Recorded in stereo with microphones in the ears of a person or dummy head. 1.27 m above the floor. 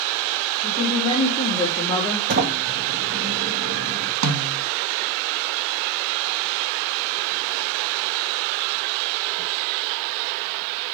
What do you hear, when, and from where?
0.6 s a woman speaking: 40° left (ahead or behind), 3 m; by 2.2 s 15° left (ahead or behind), 2 m
2.3 s a sliding door: 55° right (ahead or behind), 1.8 m
4.2 s a snare drum: 80° right, 2 m